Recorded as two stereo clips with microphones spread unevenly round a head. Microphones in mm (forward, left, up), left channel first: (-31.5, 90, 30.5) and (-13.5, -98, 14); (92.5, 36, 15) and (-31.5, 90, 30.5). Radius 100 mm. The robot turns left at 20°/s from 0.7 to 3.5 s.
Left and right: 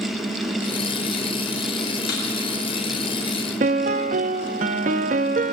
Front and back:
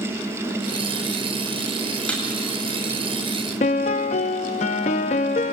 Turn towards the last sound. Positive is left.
turn(degrees=-45)